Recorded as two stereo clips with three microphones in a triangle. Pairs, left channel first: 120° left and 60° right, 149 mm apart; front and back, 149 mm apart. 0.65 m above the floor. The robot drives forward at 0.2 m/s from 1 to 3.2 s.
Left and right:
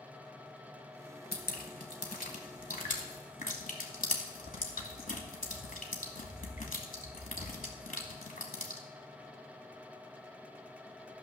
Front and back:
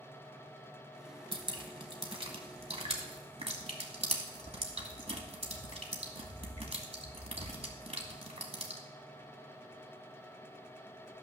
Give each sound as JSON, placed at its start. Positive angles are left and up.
{"t": 1.3, "sound": "dripping", "azimuth_deg": 125, "distance_m": 1.5}